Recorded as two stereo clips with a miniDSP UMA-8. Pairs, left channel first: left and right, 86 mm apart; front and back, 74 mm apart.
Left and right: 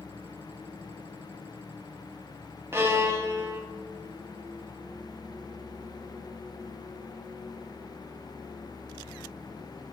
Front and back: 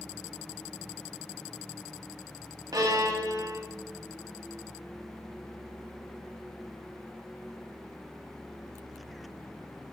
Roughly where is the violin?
Behind right.